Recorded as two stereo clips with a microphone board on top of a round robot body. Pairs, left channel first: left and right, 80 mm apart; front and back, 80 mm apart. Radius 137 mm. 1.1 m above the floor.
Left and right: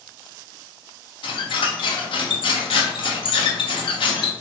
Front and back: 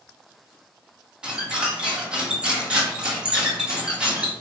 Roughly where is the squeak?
Left.